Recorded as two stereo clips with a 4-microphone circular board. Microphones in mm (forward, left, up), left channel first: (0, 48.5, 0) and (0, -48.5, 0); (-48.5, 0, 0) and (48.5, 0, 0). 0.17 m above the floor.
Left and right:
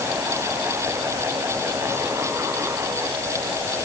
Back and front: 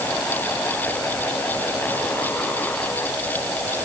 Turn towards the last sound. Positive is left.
No sound to turn to.